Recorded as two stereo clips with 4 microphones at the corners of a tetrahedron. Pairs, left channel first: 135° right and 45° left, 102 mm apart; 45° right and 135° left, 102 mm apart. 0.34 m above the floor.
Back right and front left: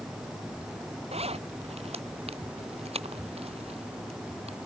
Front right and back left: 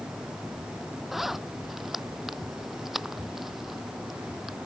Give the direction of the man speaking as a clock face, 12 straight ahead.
No man speaking in this recording.